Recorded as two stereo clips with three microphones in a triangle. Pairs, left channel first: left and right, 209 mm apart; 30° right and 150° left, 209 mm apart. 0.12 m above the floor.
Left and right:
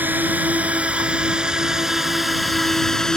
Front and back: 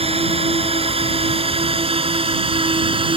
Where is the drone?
165° right; by 3.2 s 175° left.